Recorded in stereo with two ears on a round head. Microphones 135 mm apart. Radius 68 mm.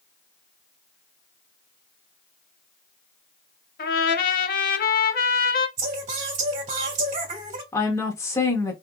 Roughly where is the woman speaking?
Centre.